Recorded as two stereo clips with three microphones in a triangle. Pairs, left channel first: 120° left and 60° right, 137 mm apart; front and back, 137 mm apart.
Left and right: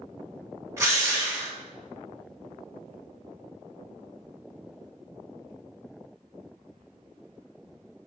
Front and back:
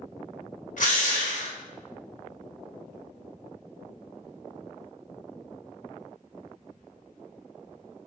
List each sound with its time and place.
0.8 s a drill: 10° left, 1.2 m